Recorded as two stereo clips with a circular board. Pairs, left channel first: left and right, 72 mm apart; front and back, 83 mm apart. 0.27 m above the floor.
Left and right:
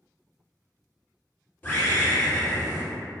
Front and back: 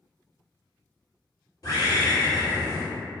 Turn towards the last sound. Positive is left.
turn(degrees=30)